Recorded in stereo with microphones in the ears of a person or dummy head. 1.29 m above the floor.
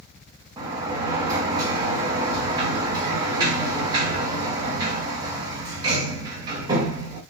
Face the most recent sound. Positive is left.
turn(degrees=-25)  # may be behind; listen again after turning